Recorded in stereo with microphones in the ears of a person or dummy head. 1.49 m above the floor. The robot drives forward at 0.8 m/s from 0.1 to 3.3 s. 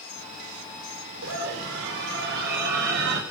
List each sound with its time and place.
1.2 s a scream: 80° right, 4.5 m; by 3.2 s 60° right (ahead or behind), 5 m